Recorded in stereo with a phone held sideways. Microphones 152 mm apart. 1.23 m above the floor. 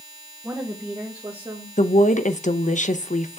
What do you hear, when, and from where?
0.4 s a woman speaking: 10° right (ahead or behind), 1.1 m; by 1.7 s 30° right (ahead or behind), 1.8 m
1.8 s a woman speaking: 55° left (ahead or behind), 0.7 m